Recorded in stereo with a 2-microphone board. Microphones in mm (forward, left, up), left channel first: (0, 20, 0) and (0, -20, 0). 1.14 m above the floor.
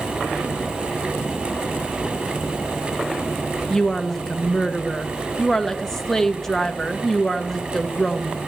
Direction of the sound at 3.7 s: 10° left (ahead or behind).